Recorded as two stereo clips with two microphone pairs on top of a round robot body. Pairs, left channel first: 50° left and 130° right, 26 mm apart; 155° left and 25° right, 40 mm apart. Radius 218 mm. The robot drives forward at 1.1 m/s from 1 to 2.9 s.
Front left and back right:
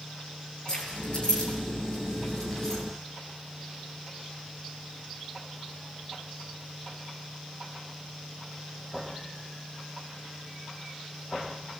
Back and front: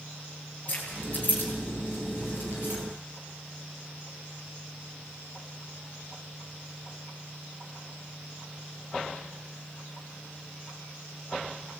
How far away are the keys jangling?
About 7.5 m.